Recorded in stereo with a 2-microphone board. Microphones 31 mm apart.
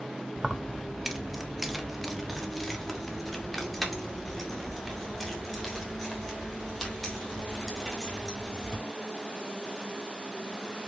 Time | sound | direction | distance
0.4 | keys jangling | 10° right (ahead or behind) | 0.6 m